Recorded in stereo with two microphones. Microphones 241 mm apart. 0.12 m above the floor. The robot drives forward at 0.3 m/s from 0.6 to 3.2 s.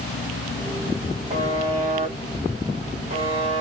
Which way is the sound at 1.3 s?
25° right (ahead or behind).